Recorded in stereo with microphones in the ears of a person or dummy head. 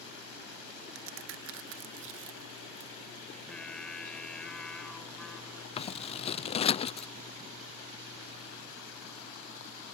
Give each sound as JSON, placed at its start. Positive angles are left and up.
{"t": 0.9, "sound": "a crack", "side_deg": -70}
{"t": 3.3, "sound": "singing", "side_deg": 5}
{"t": 5.8, "sound": "scissors", "side_deg": 30}